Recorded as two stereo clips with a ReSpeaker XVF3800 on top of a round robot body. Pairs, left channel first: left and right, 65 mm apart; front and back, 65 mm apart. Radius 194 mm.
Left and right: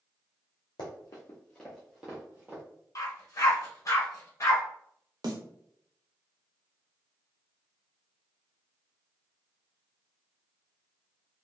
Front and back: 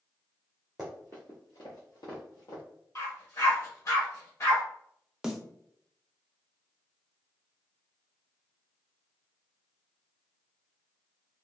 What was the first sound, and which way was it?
Running footsteps, 90° left.